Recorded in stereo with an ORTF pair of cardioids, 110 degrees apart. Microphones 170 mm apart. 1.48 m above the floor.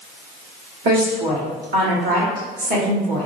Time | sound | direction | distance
0.8 | a woman speaking | 70° right | 1.9 m